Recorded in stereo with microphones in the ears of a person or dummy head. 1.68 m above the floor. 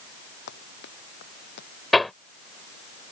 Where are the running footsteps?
55° left (ahead or behind).